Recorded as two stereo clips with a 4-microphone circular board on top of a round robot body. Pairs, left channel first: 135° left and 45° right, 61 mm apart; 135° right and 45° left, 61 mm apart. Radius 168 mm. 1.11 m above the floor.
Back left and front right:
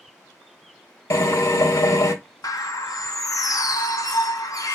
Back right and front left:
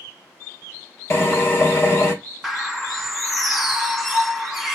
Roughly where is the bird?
Behind left.